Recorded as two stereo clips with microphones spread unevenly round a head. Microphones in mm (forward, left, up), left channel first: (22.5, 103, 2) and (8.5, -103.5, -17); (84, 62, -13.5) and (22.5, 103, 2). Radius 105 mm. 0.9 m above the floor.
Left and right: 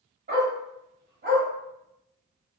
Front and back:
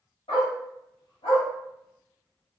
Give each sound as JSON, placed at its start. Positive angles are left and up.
{"t": 0.3, "sound": "a dog barking", "azimuth_deg": -45, "distance_m": 1.7}